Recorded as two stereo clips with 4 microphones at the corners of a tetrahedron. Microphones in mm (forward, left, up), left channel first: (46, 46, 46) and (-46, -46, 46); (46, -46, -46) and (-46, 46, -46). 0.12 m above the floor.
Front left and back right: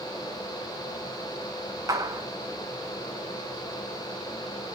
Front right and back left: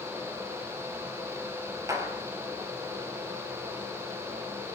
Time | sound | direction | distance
1.9 | a clap | straight behind | 1.5 m